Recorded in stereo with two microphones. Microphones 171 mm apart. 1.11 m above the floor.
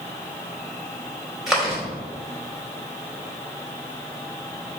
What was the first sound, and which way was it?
Chewing, centre (ahead or behind).